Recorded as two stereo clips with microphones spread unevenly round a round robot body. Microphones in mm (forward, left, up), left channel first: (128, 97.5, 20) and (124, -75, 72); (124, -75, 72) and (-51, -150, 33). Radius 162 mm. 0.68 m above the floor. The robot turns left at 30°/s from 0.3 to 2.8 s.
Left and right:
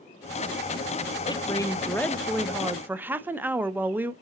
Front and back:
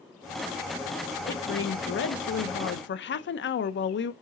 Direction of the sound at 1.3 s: 50° left.